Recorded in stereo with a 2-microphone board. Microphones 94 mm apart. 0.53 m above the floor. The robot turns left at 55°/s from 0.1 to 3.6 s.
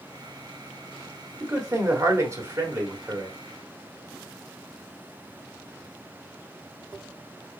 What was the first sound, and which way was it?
A man speaking, 65° right.